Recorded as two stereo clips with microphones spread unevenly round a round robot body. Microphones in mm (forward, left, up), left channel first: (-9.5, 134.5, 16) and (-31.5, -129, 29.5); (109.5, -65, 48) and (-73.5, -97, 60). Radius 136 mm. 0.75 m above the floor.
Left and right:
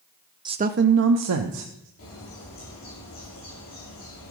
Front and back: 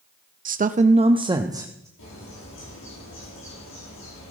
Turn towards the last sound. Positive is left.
turn(degrees=30)